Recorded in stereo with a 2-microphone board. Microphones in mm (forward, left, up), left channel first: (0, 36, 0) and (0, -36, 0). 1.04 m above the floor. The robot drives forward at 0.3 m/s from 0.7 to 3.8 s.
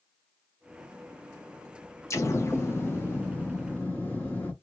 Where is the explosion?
40° left (ahead or behind), 0.7 m; by 4.5 s 25° left (ahead or behind), 1.1 m.